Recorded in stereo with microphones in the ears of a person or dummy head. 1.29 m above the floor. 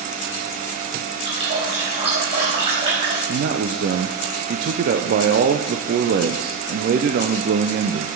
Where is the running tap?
30° right (ahead or behind), 5 m.